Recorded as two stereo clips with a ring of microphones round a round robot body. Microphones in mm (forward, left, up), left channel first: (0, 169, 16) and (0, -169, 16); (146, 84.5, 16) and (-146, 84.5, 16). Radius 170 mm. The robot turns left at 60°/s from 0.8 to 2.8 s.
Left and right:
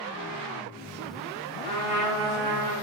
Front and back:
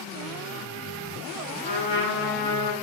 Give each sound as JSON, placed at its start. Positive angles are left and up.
{"t": 1.6, "sound": "a trumpet", "azimuth_deg": 65, "distance_m": 3.5}